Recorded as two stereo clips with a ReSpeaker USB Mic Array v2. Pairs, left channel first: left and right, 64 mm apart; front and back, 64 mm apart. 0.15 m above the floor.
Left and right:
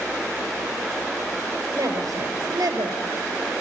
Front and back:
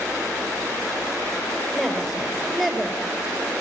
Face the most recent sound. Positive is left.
turn(degrees=-85)